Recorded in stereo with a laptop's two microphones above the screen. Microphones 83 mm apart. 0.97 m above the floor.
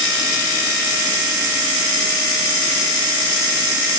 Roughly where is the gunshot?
I don't hear a gunshot.